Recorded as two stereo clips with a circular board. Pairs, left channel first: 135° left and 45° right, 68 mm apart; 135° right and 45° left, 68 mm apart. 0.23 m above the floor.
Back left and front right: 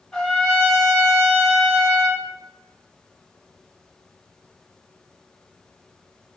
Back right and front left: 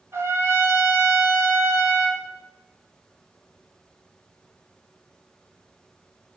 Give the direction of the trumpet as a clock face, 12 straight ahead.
10 o'clock.